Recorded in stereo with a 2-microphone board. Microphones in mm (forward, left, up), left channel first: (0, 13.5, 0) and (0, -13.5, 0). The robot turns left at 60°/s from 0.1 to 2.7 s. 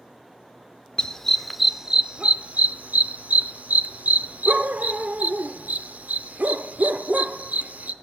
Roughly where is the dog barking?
Left.